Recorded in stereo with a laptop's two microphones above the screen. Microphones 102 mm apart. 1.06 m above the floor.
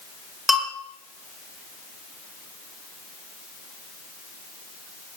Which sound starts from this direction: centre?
A bell, at 0.5 s.